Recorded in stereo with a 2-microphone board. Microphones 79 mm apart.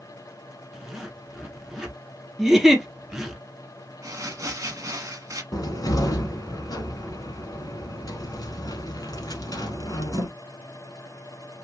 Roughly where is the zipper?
Centre.